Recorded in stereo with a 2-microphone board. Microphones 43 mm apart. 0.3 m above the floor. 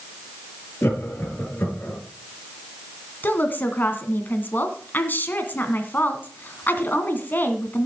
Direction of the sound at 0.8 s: 45° left (ahead or behind).